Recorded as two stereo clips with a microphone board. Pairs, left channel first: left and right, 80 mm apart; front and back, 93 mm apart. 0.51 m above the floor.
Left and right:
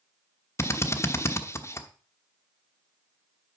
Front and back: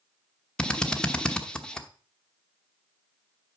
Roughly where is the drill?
Left.